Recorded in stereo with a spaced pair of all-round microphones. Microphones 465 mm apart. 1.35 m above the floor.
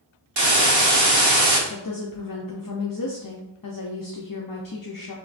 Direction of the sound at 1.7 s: 45° left (ahead or behind).